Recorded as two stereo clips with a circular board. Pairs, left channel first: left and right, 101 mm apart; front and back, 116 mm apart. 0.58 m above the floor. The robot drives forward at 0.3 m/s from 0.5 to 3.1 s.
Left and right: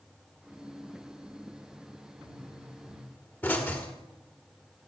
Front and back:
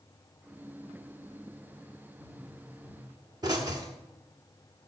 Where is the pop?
140° left, 1.5 m; by 3.9 s 150° left, 1.6 m.